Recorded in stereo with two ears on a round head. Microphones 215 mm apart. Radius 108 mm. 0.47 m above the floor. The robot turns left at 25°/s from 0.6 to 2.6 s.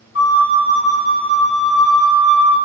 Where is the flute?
55° left, 0.8 m; by 2.6 s 5° left, 0.8 m.